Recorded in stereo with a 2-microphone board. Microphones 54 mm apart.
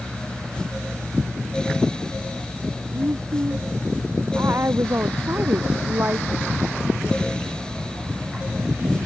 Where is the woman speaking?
55° right (ahead or behind); by 6.3 s 40° right (ahead or behind).